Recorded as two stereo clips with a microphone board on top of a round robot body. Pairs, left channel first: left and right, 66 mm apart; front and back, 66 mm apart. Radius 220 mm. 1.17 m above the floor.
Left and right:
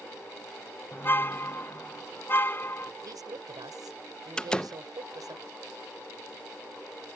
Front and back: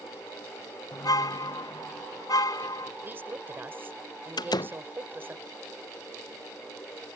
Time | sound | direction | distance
0.9 | a car horn | 30° left | ?
3.0 | a woman speaking | 120° right | ?
4.4 | a door slam | 10° left | ?